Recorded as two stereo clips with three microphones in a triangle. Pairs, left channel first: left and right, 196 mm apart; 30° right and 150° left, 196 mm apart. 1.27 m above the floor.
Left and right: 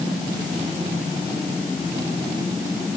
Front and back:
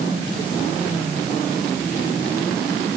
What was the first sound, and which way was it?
Only background noise.